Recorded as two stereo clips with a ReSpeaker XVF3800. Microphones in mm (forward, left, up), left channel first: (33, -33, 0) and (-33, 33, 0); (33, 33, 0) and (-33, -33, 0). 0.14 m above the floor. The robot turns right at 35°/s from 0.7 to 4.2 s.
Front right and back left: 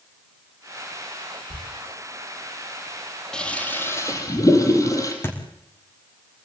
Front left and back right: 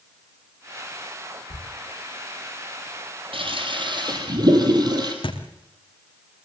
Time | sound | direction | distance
1.5 | a thud | 110° left | 6.5 m
3.3 | a toilet flushing | 125° right | 3.5 m
5.2 | a thud | 20° left | 4 m